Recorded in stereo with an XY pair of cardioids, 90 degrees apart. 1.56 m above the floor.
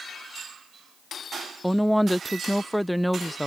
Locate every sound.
1.6 s a woman speaking: straight ahead